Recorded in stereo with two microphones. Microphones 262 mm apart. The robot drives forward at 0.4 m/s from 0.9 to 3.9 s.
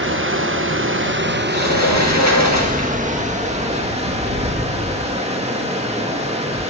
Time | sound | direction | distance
0.0 | running water | 50° right (ahead or behind) | 1.1 m
1.5 | a sliding door | 80° left | 2.5 m